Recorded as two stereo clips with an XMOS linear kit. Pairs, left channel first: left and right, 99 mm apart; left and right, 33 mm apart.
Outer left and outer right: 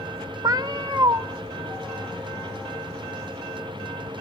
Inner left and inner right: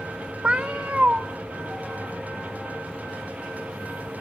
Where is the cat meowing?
40° right (ahead or behind), 0.5 m.